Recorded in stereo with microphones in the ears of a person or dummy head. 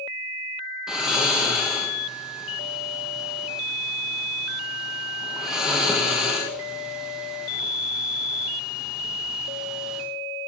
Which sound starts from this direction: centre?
Snoring, at 0.9 s.